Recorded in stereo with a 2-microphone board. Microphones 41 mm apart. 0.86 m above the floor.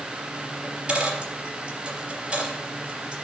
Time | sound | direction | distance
0.6 | a dropped coin | 30° right (ahead or behind) | 3.5 m